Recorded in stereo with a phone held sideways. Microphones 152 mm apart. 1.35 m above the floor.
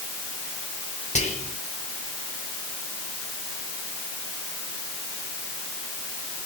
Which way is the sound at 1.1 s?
50° left (ahead or behind).